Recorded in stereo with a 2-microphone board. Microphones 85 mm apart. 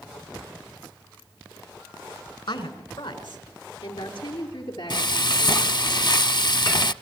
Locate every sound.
2.5 s a woman speaking: 80° left, 3.5 m; by 5.7 s 65° left (ahead or behind), 7.5 m
4.9 s frying: 60° left (ahead or behind), 0.6 m